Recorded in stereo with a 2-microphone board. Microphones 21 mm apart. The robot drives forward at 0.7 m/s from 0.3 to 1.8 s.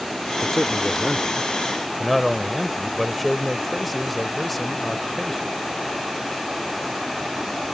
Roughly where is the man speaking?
Centre.